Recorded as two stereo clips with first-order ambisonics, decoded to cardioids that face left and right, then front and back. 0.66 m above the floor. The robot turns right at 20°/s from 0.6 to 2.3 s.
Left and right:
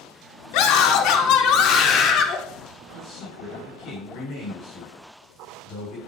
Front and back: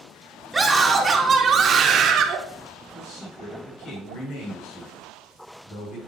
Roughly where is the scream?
Left.